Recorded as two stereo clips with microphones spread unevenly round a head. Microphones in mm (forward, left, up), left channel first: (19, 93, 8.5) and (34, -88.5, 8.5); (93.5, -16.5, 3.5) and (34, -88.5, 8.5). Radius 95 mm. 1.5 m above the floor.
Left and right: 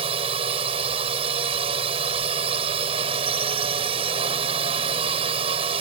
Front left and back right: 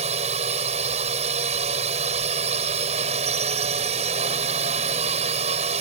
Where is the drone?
150° right.